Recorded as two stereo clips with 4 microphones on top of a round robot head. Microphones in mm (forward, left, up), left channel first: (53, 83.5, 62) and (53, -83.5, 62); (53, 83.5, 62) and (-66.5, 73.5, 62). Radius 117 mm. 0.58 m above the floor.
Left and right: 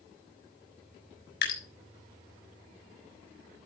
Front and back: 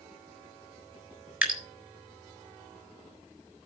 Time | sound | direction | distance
1.4 | dripping | 105° left | 4 m